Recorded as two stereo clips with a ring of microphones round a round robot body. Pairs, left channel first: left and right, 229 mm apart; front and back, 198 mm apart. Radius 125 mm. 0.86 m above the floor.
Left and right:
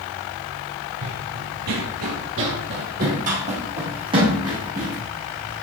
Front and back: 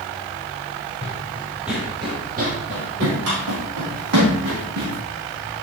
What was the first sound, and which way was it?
Running footsteps, 65° right.